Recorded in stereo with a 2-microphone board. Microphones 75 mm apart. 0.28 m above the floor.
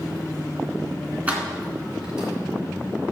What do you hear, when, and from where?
1.3 s keys jangling: 20° right (ahead or behind), 2 m; by 2.3 s 10° right (ahead or behind), 3.5 m